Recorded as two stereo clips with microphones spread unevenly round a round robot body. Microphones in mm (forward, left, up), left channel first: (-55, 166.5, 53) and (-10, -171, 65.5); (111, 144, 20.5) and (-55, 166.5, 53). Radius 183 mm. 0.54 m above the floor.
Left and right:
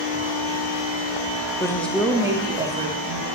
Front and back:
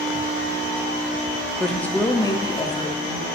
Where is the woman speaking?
45° left, 0.8 m; by 3.3 s 25° right, 1.2 m.